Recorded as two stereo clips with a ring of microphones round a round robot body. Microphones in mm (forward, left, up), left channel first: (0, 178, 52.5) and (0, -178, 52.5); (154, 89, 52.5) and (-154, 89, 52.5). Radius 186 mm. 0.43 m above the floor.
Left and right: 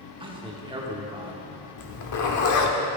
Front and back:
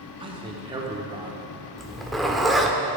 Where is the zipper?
90° left, 1.0 m.